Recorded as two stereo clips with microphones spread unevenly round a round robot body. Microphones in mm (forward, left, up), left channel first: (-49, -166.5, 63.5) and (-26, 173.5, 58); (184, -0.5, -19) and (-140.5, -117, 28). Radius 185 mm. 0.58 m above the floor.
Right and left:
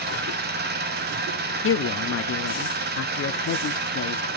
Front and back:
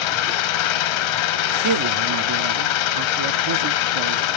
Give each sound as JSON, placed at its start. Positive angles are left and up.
{"t": 0.0, "sound": "an engine running", "azimuth_deg": 20, "distance_m": 0.8}
{"t": 1.6, "sound": "a man speaking", "azimuth_deg": -135, "distance_m": 0.9}